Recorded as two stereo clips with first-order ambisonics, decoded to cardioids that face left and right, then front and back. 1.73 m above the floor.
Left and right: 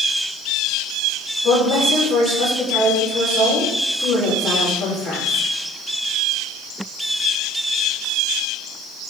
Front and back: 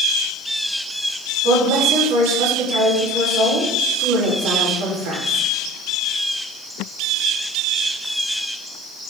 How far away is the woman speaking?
About 5 m.